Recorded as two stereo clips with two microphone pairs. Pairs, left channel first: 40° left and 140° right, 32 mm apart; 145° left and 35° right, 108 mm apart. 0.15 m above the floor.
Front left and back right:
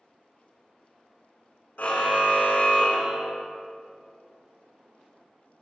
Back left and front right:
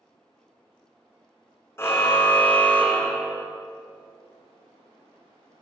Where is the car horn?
75° left, 3.5 m; by 3.5 s 60° left, 4 m.